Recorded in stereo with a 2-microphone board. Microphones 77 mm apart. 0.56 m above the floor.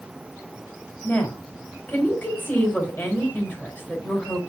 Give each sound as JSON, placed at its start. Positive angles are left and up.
{"t": 1.0, "sound": "a woman speaking", "side_deg": 15, "distance_m": 2.5}